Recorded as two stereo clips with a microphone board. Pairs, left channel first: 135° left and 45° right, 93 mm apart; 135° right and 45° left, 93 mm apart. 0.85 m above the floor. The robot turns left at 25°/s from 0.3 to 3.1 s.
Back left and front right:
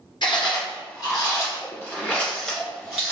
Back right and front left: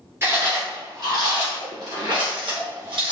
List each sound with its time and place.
0.2 s chewing: 105° left, 1.7 m; by 3.1 s 35° left, 1.7 m